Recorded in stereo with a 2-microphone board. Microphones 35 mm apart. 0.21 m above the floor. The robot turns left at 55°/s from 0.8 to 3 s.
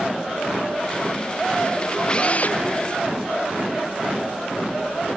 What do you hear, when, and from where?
2.1 s a drill: 25° left (ahead or behind); by 2.6 s 55° left (ahead or behind)